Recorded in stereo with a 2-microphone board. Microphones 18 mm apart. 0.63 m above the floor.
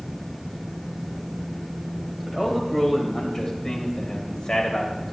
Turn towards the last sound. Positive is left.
turn(degrees=40)  # may be behind; listen again after turning